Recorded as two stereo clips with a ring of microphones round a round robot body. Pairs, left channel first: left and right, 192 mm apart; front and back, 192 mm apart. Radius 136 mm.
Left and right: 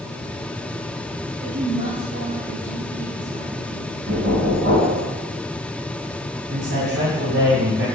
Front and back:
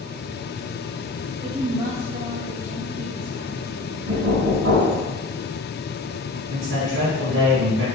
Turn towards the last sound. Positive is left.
turn(degrees=-135)